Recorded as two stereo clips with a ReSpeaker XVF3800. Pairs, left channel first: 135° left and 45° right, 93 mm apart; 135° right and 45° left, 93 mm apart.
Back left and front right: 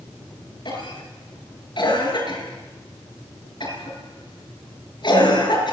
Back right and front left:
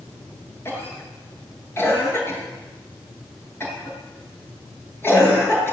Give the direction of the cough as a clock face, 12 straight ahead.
7 o'clock.